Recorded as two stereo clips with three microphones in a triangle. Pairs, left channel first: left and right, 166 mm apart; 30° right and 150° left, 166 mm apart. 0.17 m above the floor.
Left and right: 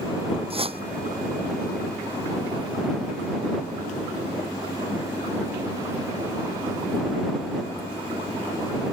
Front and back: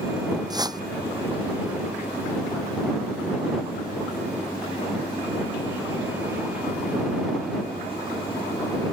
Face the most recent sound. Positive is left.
turn(degrees=-145)